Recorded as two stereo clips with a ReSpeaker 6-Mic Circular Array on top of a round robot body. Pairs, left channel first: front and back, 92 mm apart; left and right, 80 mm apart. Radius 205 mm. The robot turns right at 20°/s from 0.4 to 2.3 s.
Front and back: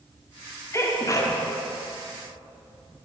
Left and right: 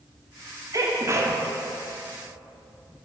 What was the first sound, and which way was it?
A sneeze, 55° right.